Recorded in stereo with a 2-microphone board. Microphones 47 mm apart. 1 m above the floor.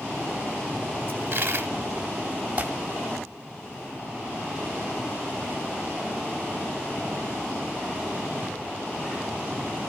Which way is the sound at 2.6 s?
30° right (ahead or behind).